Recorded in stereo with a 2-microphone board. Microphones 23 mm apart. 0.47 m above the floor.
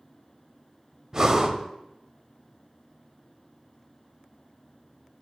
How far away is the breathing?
About 0.7 m.